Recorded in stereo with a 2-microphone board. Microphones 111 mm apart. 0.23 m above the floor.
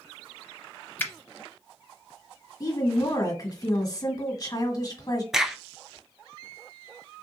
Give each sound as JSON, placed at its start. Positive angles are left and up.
{"t": 1.0, "sound": "a finger snap", "side_deg": 20, "distance_m": 0.7}
{"t": 2.6, "sound": "a woman speaking", "side_deg": 35, "distance_m": 1.6}
{"t": 5.3, "sound": "a crack", "side_deg": -5, "distance_m": 0.5}